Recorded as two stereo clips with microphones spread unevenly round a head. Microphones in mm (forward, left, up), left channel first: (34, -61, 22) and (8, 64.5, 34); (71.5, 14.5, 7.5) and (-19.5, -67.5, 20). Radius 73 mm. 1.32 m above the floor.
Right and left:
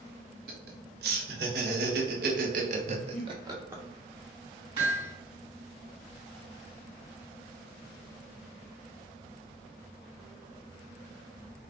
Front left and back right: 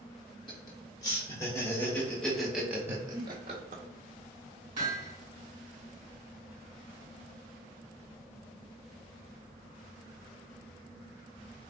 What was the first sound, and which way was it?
Laughter, 105° left.